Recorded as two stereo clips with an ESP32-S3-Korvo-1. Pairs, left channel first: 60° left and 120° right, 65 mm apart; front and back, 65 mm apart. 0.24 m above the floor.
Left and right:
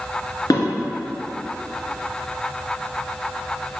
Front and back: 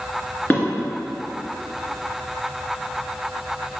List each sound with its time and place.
0.5 s dishes clattering: 60° left, 2.5 m